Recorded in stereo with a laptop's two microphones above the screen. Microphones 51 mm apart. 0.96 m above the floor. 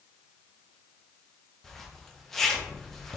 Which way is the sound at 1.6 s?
5° left (ahead or behind).